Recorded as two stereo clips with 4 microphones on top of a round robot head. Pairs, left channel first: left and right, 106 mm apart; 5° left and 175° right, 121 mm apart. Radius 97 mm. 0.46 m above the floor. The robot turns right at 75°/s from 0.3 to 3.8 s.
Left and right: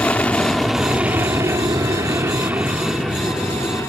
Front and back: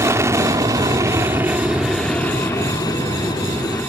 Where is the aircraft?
155° left; by 3.9 s 55° left.